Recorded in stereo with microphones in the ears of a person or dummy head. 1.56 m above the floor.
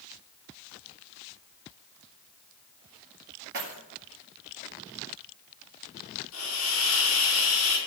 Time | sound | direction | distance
3.5 | keys jangling | 55° right (ahead or behind) | 2 m
6.3 | a hiss | 80° left | 3.5 m